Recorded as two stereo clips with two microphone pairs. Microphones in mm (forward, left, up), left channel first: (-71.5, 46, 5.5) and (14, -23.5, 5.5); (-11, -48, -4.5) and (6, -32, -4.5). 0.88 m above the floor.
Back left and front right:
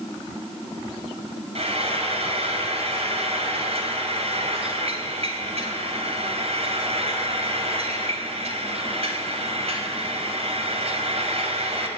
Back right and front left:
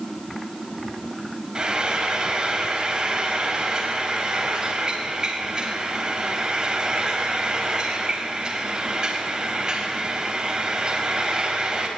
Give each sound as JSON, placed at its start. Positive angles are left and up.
{"t": 1.6, "sound": "frying", "azimuth_deg": -10, "distance_m": 4.0}